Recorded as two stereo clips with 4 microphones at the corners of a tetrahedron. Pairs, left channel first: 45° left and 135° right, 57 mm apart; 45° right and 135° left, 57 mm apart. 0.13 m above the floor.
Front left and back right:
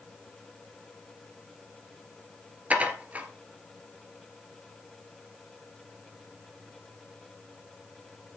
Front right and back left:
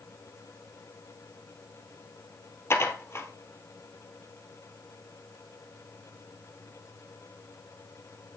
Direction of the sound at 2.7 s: 75° right.